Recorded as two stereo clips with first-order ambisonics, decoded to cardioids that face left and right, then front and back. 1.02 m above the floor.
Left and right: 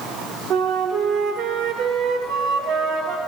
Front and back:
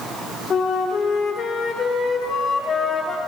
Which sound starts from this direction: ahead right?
A flute, at 0.5 s.